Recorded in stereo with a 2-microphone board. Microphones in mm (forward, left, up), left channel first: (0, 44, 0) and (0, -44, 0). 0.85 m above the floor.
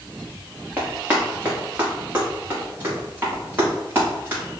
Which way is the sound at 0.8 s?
20° right (ahead or behind).